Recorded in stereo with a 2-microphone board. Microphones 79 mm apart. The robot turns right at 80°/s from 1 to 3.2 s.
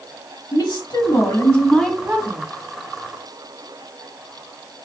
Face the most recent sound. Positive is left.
turn(degrees=-80)